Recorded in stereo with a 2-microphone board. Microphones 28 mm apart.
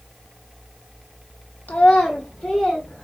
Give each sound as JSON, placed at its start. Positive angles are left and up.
{"t": 1.7, "sound": "a child speaking", "side_deg": 70, "distance_m": 0.6}